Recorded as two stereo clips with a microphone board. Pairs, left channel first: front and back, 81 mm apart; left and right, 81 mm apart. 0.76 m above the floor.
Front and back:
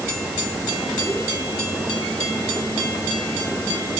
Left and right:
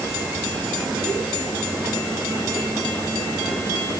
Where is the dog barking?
I don't hear a dog barking.